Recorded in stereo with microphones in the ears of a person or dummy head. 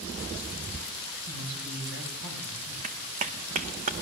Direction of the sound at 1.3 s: 75° right (ahead or behind).